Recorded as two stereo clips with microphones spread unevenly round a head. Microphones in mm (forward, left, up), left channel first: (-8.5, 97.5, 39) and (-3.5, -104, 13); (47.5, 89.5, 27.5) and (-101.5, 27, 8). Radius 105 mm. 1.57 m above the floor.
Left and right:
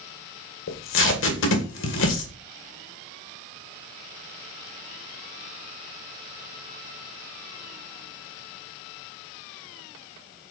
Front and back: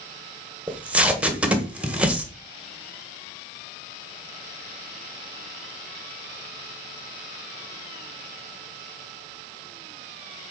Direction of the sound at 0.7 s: 120° left.